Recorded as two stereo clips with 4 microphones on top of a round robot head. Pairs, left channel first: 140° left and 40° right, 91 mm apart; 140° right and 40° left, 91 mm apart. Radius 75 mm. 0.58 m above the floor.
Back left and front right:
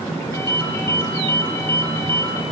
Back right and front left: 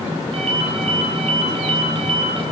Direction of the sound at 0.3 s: 75° left.